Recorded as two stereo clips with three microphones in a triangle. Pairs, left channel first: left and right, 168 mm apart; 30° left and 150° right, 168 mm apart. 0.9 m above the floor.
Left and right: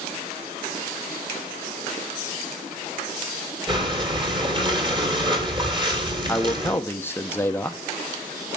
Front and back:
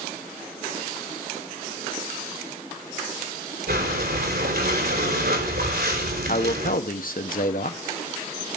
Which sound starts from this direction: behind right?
Breathing, at 3.7 s.